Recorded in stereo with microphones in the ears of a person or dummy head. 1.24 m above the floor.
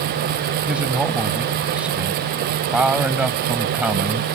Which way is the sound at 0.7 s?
10° right (ahead or behind).